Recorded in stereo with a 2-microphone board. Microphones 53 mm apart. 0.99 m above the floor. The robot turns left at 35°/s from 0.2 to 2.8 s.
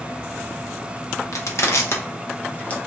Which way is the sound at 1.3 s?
70° left (ahead or behind).